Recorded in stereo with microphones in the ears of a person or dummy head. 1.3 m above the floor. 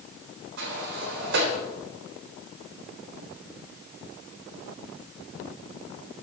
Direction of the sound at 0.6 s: 60° right (ahead or behind).